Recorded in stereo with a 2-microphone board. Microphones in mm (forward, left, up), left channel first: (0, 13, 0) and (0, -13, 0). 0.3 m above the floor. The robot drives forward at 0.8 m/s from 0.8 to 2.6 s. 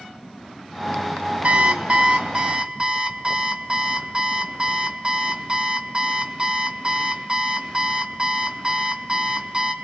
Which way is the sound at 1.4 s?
55° right (ahead or behind).